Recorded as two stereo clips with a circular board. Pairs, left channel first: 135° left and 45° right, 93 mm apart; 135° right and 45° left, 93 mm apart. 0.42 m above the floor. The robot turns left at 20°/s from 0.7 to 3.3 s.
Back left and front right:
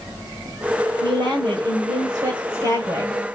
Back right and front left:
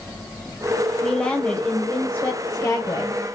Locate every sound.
1.0 s a woman speaking: 50° right, 2 m; by 3.2 s 95° right, 2 m